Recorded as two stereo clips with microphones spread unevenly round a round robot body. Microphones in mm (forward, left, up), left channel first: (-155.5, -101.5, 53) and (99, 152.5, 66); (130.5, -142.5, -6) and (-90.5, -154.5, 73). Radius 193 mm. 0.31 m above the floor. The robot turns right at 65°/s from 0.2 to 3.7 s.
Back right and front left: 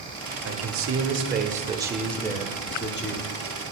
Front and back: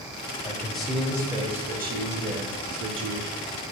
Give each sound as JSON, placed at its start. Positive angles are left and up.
{"t": 0.5, "sound": "a man speaking", "azimuth_deg": 35, "distance_m": 1.2}